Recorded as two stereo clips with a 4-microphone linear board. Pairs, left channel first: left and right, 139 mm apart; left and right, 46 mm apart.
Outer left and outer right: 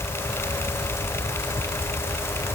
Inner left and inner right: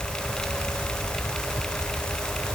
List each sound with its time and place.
Only background noise.